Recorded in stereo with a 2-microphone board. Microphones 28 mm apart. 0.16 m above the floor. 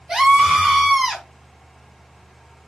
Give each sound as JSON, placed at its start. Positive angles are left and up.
{"t": 0.1, "sound": "a scream", "side_deg": -30, "distance_m": 1.4}